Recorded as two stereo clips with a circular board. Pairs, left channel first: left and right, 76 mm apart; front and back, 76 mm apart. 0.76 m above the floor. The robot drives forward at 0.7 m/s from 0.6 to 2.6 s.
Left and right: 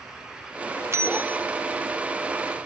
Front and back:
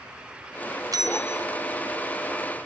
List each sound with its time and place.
0.9 s a bell: 140° right, 0.5 m; by 1.4 s 160° right, 0.8 m